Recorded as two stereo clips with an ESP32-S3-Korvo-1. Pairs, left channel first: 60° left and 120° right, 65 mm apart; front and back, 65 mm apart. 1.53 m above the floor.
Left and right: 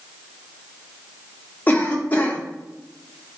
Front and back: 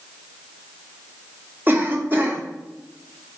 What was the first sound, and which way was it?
A cough, 125° left.